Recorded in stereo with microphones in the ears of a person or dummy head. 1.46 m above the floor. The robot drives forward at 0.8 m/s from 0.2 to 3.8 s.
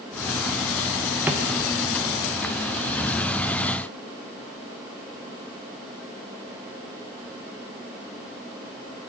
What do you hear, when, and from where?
1.3 s a drawer: 5° right (ahead or behind), 0.7 m